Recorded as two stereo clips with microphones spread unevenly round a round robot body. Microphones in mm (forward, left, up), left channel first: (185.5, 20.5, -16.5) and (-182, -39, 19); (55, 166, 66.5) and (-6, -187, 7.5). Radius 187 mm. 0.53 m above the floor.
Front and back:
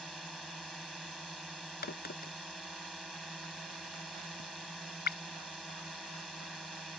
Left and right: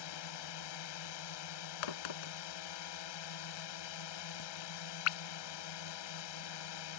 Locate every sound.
0.0 s a drone: 100° left
1.8 s a crack: 75° left